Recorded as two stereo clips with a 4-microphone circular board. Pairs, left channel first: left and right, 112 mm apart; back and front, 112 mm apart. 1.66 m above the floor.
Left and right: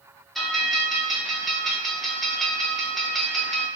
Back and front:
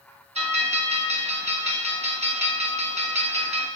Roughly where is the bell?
Ahead.